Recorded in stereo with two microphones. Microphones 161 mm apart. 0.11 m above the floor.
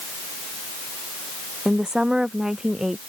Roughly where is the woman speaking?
Centre.